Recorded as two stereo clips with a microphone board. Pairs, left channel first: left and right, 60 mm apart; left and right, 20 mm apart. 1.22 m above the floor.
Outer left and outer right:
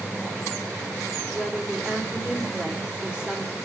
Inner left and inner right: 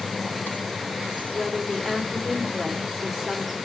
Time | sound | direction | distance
1.3 | a woman speaking | 20° right (ahead or behind) | 3 m